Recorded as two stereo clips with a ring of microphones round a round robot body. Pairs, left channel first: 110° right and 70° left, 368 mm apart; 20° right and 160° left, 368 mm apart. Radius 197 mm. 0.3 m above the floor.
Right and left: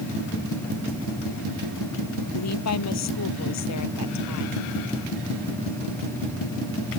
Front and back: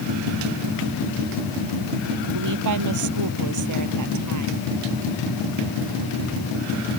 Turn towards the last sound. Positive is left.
turn(degrees=-160)